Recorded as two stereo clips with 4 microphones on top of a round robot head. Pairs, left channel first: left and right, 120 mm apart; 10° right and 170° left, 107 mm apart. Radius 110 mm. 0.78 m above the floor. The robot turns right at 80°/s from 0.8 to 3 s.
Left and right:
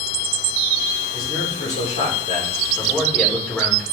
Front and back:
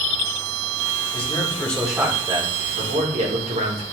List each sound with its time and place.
1.1 s a man speaking: 25° left, 3 m; by 3.8 s 170° left, 3 m